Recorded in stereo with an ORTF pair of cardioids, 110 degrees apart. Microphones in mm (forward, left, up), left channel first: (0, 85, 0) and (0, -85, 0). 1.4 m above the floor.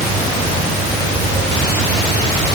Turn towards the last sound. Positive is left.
No sound to turn to.